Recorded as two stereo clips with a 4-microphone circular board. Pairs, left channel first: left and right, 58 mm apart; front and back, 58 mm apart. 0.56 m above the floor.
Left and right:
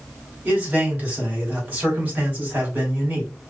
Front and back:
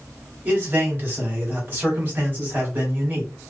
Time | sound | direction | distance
0.5 | a man speaking | 140° right | 1.6 m